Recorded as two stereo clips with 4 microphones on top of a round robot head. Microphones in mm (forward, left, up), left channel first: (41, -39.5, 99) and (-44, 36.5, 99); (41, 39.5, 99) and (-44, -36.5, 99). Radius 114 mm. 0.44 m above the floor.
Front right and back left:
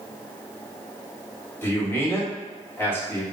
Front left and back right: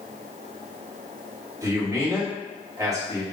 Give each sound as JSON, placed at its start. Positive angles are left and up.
{"t": 1.6, "sound": "a man speaking", "azimuth_deg": -95, "distance_m": 1.4}